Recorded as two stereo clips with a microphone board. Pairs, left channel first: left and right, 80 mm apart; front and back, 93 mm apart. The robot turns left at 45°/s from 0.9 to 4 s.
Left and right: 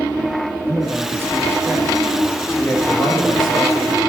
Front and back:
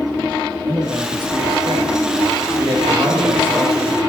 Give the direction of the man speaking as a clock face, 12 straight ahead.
4 o'clock.